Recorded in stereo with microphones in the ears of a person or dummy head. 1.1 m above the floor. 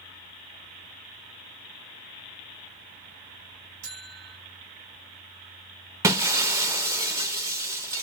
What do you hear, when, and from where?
3.8 s a buzzer: 70° right (ahead or behind), 1.2 m
6.0 s breaking glass: 15° right (ahead or behind), 0.5 m